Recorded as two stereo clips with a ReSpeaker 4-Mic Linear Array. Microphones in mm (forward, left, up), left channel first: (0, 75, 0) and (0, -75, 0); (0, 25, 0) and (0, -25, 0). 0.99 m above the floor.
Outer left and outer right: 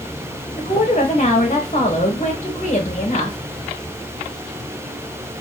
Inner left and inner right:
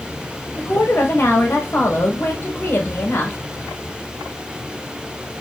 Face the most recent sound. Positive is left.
turn(degrees=50)  # may be behind; listen again after turning